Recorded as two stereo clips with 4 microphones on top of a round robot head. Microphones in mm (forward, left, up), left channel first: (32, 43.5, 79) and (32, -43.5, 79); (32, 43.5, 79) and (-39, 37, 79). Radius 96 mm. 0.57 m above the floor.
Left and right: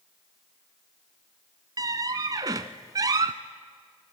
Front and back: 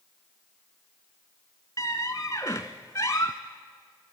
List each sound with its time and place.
1.8 s a squeak: 60° right, 0.5 m